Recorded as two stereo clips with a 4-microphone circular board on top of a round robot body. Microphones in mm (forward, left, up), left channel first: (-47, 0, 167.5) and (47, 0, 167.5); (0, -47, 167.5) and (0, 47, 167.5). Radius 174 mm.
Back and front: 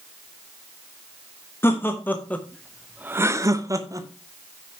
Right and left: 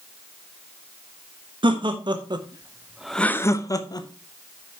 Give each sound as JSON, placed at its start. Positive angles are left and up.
{"t": 1.6, "sound": "laughter", "azimuth_deg": 115, "distance_m": 1.6}